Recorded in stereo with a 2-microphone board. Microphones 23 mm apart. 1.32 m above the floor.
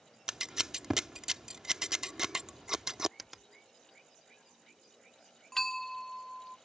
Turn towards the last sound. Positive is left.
turn(degrees=10)  # may be behind; listen again after turning